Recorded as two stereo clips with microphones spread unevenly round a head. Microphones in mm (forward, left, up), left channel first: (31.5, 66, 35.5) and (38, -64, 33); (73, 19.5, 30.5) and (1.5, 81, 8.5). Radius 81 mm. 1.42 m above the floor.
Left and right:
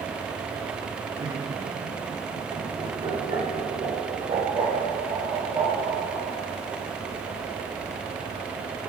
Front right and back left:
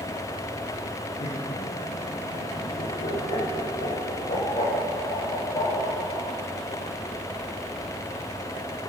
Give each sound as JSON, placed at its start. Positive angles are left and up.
{"t": 1.2, "sound": "laughter", "azimuth_deg": -40, "distance_m": 4.5}